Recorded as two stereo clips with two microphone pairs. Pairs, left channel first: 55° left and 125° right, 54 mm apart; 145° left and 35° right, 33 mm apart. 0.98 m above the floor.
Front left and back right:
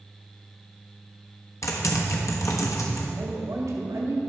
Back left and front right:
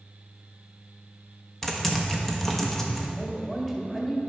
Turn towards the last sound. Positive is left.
turn(degrees=-135)